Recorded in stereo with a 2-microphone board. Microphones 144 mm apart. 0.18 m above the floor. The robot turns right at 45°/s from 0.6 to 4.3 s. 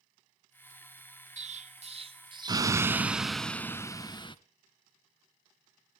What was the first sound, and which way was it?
An explosion, 90° right.